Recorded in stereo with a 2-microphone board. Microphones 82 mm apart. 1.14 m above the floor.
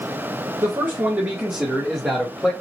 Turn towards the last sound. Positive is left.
turn(degrees=10)  # may be behind; listen again after turning